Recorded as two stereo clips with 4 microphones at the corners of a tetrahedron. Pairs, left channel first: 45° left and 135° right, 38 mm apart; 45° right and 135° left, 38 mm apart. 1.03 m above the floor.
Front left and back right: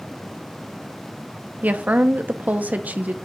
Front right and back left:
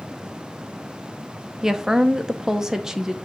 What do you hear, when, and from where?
1.6 s a woman speaking: 155° right, 0.8 m